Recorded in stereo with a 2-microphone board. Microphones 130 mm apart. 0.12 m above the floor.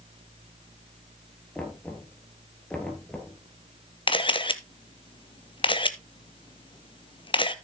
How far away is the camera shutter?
About 0.6 m.